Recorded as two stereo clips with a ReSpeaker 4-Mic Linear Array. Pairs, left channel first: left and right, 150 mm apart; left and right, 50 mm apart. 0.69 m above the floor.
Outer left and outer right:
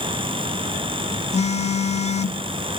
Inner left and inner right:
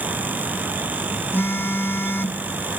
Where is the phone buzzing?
45° left (ahead or behind), 0.8 m.